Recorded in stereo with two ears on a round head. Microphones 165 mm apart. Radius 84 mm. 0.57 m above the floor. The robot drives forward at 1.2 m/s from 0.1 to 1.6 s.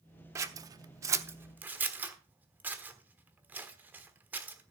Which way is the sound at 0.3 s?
15° right (ahead or behind).